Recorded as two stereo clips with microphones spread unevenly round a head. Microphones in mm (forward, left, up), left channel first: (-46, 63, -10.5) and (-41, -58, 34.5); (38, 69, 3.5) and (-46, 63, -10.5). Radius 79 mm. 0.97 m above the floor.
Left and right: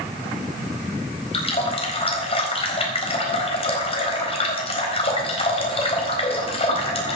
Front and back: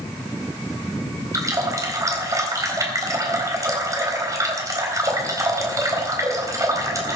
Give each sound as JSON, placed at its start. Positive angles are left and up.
{"t": 1.3, "sound": "a running tap", "azimuth_deg": 135, "distance_m": 4.0}